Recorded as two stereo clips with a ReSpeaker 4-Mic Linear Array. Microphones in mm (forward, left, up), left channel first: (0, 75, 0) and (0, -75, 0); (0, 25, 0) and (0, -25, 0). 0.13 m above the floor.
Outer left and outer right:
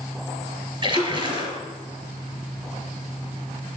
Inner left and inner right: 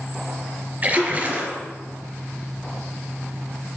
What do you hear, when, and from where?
0.8 s a splash: 35° right (ahead or behind), 1.6 m